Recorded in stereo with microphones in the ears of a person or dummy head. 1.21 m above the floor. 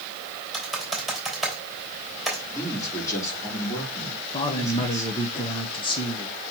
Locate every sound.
0.5 s typing on a keyboard: centre (ahead or behind), 3 m
2.5 s a man speaking: 15° left (ahead or behind), 3 m
4.3 s a man speaking: 25° left (ahead or behind), 0.9 m